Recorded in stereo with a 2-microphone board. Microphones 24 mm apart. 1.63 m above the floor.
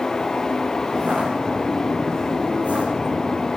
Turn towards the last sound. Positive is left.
turn(degrees=-80)